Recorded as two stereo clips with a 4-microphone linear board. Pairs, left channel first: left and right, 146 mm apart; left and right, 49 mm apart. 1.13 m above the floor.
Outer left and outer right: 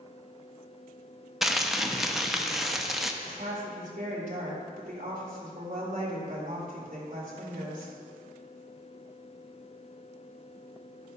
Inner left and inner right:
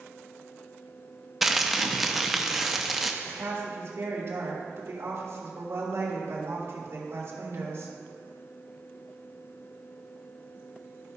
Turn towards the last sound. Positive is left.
turn(degrees=-60)  # may be behind; listen again after turning